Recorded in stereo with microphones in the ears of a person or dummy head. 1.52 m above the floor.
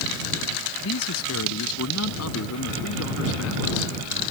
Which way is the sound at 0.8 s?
85° left.